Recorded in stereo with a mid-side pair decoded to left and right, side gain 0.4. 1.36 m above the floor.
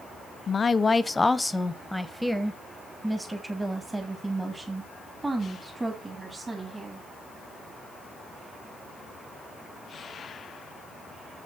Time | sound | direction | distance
0.5 | a woman speaking | 45° left | 0.7 m